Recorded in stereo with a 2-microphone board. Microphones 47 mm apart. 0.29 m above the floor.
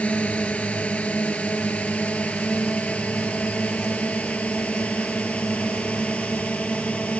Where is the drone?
25° left (ahead or behind).